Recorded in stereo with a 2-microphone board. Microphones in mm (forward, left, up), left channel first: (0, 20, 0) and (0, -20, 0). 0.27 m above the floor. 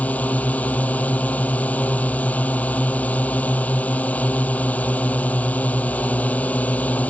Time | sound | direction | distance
0.0 | a drone | 40° left (ahead or behind) | ?